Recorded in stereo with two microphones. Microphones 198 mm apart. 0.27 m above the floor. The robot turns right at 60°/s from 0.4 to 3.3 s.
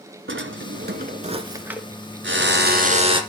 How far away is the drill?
About 1.8 m.